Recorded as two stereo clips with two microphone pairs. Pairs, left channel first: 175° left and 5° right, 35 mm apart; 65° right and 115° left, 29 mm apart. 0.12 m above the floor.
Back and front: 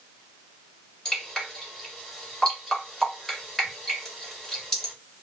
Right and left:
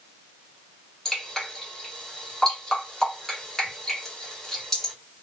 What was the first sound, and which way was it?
Dripping, 125° right.